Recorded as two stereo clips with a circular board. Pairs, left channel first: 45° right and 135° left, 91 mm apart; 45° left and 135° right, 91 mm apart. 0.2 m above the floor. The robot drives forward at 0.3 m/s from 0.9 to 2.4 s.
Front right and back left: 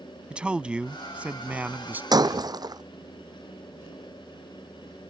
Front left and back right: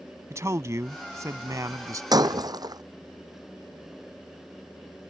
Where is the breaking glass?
Straight behind.